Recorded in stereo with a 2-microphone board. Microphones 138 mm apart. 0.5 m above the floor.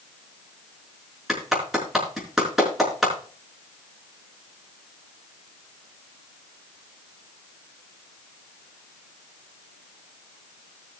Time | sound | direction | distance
1.3 | a clap | centre (ahead or behind) | 5 m